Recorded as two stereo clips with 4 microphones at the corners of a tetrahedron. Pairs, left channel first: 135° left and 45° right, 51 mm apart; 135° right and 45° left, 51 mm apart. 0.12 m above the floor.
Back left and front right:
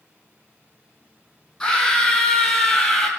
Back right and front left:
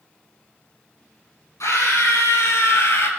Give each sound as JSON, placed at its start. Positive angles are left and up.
{"t": 1.6, "sound": "a scream", "azimuth_deg": -145, "distance_m": 4.0}